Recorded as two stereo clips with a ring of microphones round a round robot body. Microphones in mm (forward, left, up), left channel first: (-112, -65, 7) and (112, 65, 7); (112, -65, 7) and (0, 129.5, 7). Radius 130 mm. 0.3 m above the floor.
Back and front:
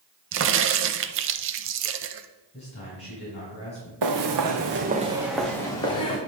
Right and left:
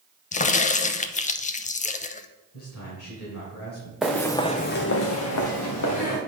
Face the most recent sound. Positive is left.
turn(degrees=-80)